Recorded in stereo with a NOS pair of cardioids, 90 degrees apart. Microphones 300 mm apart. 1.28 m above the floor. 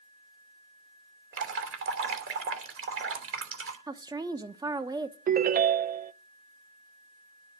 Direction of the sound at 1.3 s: 45° right.